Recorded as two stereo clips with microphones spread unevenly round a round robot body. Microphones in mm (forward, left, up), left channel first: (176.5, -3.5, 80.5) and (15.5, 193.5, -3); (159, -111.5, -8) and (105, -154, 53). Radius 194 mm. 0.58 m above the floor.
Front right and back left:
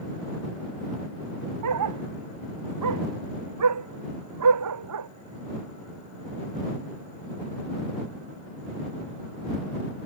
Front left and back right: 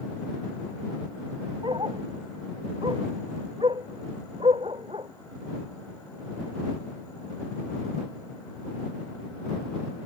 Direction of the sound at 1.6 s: 150° left.